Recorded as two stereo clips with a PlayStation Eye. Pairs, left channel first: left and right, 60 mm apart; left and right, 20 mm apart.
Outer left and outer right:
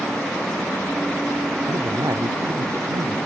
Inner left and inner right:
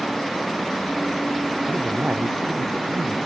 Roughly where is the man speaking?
Right.